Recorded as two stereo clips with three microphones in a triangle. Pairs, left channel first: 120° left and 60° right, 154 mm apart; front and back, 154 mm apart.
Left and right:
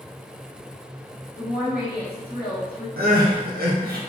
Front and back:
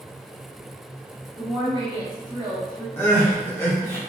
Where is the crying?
75° right, 0.8 m.